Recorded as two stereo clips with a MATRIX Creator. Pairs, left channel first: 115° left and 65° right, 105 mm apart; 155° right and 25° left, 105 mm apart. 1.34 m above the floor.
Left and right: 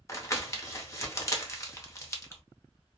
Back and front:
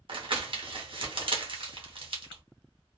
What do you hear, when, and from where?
0.1 s crumpling: 55° left, 0.7 m